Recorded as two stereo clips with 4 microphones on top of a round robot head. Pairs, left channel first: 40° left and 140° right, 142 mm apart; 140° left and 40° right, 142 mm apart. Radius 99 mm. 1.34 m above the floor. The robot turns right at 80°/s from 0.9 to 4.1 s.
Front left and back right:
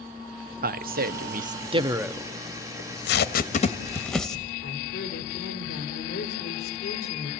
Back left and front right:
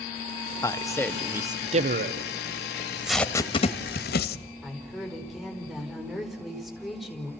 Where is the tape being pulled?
20° left, 1.2 m; by 4.4 s 125° left, 1.2 m.